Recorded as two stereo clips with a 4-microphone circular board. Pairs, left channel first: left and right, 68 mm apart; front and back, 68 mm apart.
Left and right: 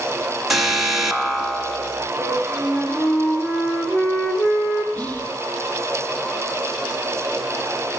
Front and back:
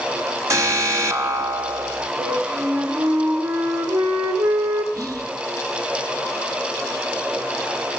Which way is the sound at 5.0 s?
150° left.